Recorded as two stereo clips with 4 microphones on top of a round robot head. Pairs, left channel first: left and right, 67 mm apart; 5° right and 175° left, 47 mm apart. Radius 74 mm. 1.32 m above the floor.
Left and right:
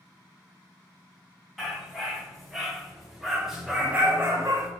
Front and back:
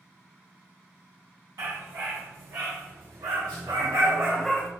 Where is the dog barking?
Straight behind, 3.5 m; by 4.7 s 55° right, 0.9 m.